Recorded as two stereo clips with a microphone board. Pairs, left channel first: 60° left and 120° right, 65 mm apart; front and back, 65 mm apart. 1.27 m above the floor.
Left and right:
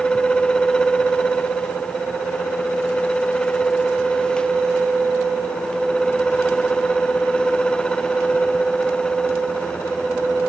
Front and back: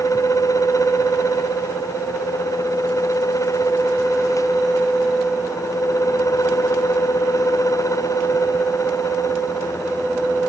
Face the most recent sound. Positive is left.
No sound to turn to.